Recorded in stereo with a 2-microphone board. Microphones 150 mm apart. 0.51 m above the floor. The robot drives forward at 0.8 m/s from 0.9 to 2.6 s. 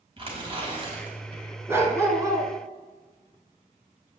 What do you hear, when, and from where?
0.2 s tearing paper: 40° right (ahead or behind), 3 m; by 1.4 s 45° right (ahead or behind), 2.5 m
1.7 s a dog barking: 15° right (ahead or behind), 1.9 m; by 2.5 s 25° right (ahead or behind), 1.3 m